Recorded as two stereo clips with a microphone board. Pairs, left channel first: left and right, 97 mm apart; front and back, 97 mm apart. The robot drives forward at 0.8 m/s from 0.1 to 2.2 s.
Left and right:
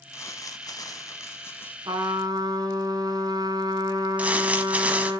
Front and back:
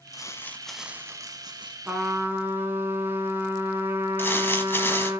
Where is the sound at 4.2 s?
35° right, 1.1 m.